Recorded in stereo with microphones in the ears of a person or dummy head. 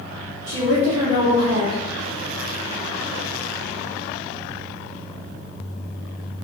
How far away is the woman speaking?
About 1.3 m.